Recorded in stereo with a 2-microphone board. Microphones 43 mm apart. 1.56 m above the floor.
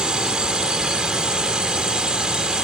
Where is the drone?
20° right (ahead or behind).